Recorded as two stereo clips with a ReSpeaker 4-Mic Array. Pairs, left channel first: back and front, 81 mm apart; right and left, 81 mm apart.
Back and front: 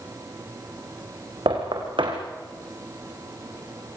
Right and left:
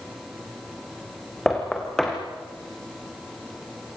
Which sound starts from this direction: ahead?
Knocking, at 1.5 s.